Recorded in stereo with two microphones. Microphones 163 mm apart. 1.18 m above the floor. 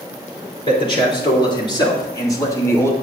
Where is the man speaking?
30° left (ahead or behind), 3 m; by 2.9 s 15° left (ahead or behind), 1.8 m.